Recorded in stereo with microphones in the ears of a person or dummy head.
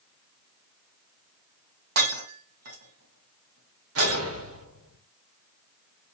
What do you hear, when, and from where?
2.0 s breaking glass: 55° right (ahead or behind), 2 m
4.0 s an explosion: 70° right (ahead or behind), 2.5 m